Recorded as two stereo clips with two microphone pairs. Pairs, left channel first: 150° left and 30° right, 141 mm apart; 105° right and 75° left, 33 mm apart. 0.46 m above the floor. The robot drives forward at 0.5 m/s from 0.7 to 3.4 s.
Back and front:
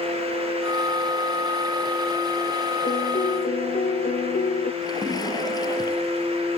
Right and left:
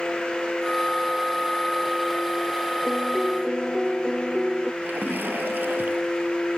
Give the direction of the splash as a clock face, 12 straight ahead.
9 o'clock.